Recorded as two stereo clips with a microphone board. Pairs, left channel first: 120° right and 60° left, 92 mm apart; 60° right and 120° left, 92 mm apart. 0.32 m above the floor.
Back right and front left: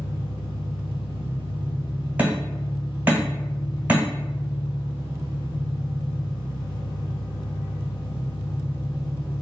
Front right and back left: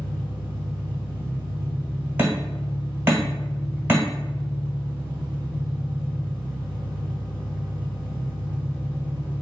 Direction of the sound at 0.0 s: 135° right.